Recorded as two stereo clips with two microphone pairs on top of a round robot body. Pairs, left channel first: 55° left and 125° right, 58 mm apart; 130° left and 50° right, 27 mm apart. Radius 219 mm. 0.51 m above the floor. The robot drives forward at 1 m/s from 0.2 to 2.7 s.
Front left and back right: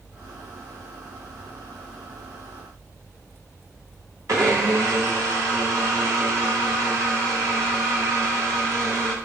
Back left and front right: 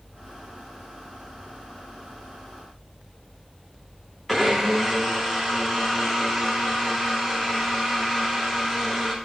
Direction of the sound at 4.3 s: 150° right.